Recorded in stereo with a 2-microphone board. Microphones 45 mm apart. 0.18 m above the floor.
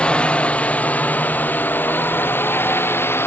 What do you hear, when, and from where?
0.0 s a drone: 30° left (ahead or behind); by 3.3 s 70° left (ahead or behind)